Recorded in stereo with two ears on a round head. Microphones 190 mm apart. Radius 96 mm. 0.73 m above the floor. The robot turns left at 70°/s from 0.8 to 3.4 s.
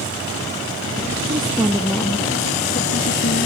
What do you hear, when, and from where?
1.3 s a woman speaking: 145° right, 0.9 m; by 3.5 s 70° left, 0.9 m